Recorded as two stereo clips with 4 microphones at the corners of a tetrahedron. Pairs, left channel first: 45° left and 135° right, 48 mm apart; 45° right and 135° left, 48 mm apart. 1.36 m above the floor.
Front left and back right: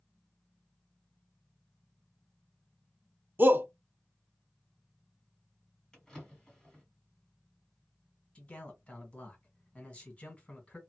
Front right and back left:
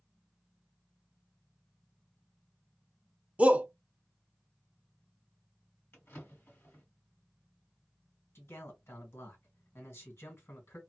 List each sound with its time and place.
3.4 s a shout: 170° right, 0.6 m
5.9 s a drawer: 35° right, 1.7 m
8.3 s a man speaking: 20° right, 1.6 m